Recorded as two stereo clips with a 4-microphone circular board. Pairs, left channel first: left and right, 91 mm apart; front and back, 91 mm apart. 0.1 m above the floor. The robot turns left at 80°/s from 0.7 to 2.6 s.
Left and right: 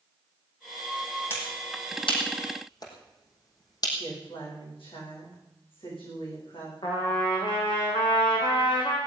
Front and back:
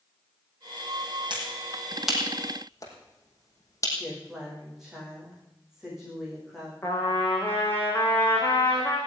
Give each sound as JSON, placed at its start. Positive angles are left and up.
{"t": 1.3, "sound": "a finger snap", "azimuth_deg": 155, "distance_m": 5.0}
{"t": 4.0, "sound": "a woman speaking", "azimuth_deg": 95, "distance_m": 9.0}
{"t": 6.8, "sound": "a trumpet", "azimuth_deg": 65, "distance_m": 5.5}